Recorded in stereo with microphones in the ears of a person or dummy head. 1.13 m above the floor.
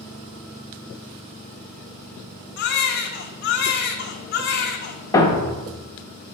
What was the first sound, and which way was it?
A baby crying, 65° left (ahead or behind).